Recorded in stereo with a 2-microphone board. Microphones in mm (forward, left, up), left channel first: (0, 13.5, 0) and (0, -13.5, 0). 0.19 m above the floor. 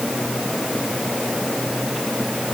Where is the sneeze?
I don't hear a sneeze.